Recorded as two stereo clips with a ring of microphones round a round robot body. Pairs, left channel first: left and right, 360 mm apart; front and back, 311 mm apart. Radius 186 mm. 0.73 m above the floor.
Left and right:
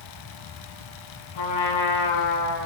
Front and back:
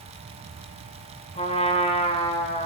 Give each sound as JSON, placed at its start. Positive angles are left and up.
{"t": 1.4, "sound": "a trumpet", "azimuth_deg": 70, "distance_m": 6.5}